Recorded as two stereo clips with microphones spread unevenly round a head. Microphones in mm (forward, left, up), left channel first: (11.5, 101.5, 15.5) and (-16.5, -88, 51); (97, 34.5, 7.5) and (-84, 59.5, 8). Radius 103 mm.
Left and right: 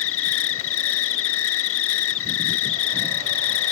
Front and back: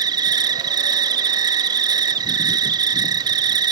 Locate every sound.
0.0 s an insect: 105° left